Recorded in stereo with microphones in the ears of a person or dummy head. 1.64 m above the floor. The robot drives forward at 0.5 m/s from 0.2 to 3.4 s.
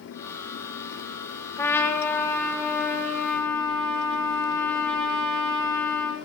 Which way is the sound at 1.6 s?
15° left (ahead or behind).